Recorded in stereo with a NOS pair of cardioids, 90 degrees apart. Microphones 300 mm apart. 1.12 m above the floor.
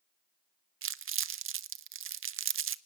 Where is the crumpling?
40° right, 0.7 m.